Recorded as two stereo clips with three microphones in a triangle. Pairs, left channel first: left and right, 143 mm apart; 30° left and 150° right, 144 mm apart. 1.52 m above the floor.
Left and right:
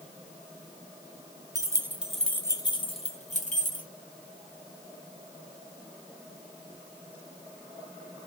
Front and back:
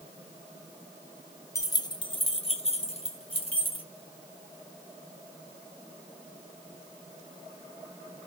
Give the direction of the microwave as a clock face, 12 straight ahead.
No microwave in this recording.